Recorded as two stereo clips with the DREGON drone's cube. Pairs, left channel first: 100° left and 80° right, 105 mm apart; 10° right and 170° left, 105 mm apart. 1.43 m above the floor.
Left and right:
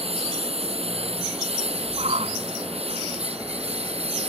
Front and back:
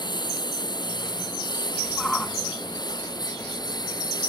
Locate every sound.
0.0 s a lawn mower: 55° right; by 4.3 s 60° right
2.0 s a shout: 95° right